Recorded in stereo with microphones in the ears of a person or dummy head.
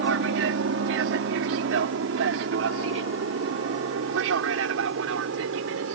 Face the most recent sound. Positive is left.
turn(degrees=-70)  # may be behind; listen again after turning